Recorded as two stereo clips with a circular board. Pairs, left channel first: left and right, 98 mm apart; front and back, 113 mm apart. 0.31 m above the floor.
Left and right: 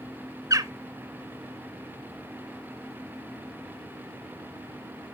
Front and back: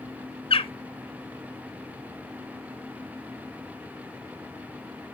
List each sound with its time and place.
0.5 s a bird: 35° right, 0.6 m